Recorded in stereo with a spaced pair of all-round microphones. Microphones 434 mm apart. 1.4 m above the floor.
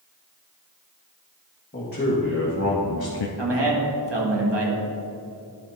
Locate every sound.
1.7 s a man speaking: 20° left (ahead or behind), 2 m; by 3.3 s 85° left, 0.5 m
3.4 s a man speaking: 70° right (ahead or behind), 1.7 m